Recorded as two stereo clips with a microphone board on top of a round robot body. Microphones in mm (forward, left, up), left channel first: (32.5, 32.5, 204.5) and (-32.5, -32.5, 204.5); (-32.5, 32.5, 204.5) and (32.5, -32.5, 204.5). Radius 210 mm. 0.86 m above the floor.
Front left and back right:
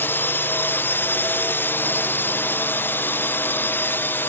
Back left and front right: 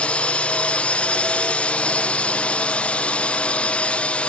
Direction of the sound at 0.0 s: 75° left.